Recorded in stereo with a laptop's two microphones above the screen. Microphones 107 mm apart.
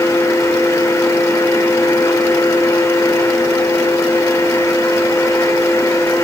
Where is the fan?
25° left (ahead or behind), 2 m.